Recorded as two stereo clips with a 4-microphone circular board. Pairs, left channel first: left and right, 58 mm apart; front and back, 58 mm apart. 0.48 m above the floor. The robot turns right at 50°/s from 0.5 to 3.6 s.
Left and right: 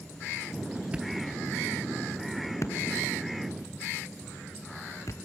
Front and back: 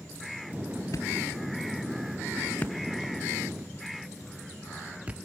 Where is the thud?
20° right, 1.4 m; by 5.2 s 115° left, 1.4 m.